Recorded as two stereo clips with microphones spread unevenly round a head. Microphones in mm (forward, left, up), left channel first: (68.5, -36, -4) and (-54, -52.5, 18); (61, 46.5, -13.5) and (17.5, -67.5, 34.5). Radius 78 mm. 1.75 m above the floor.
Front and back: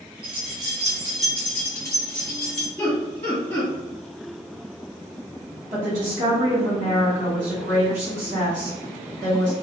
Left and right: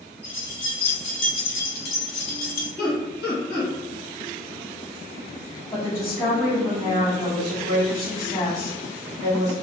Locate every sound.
0.2 s keys jangling: 165° left, 0.9 m; by 2.7 s 65° left, 1.4 m
2.8 s laughter: 70° left, 1.5 m
5.7 s a woman speaking: 150° left, 1.3 m